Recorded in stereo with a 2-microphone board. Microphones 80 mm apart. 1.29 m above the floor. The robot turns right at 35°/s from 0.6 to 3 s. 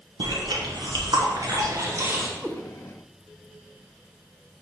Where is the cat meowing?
5° right (ahead or behind), 0.6 m; by 2.6 s centre (ahead or behind), 0.6 m.